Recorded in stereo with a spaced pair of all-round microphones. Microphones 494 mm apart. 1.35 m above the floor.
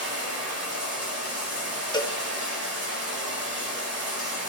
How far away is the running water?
About 6 m.